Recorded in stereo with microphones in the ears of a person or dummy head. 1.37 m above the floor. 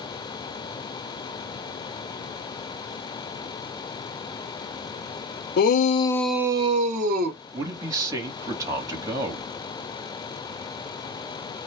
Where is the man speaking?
20° right (ahead or behind), 1.2 m.